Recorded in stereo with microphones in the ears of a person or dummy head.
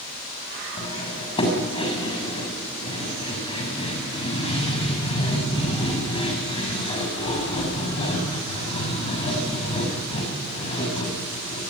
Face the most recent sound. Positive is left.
turn(degrees=30)  # may be behind; listen again after turning